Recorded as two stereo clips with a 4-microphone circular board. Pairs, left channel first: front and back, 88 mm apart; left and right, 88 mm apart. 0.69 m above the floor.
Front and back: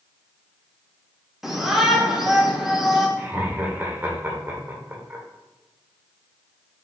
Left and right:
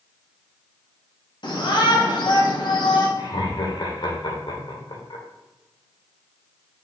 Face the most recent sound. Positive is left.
turn(degrees=115)